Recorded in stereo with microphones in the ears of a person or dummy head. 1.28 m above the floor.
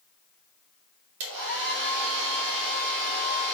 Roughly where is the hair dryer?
Right.